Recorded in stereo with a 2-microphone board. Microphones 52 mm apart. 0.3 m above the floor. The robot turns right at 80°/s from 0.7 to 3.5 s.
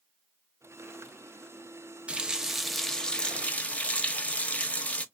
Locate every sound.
2.1 s a running tap: 20° right (ahead or behind), 0.6 m; by 5.0 s 25° left (ahead or behind), 0.6 m